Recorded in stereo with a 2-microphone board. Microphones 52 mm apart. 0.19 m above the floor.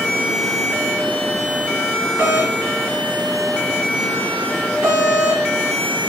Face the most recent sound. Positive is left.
turn(degrees=-40)  # may be behind; listen again after turning